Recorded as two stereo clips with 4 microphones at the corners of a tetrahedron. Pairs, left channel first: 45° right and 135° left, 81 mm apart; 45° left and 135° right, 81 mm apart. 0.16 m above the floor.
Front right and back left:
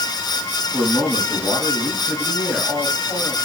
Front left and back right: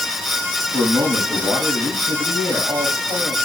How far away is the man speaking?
About 6 m.